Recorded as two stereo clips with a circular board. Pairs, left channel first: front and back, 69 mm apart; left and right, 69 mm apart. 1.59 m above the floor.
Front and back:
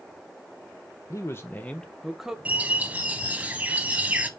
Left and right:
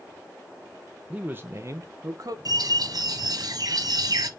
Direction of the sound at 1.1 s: 25° right.